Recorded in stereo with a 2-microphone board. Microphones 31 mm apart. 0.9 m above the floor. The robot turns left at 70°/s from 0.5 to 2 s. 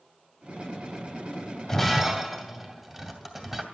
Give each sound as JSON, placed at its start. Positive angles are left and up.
{"t": 1.7, "sound": "breaking glass", "side_deg": 15, "distance_m": 2.0}